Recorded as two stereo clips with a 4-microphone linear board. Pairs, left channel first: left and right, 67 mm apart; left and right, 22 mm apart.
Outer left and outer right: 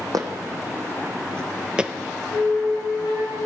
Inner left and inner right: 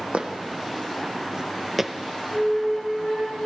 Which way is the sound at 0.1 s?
65° right (ahead or behind).